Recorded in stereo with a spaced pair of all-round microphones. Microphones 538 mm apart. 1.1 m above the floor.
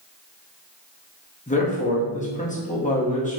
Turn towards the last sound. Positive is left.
turn(degrees=15)  # may be behind; listen again after turning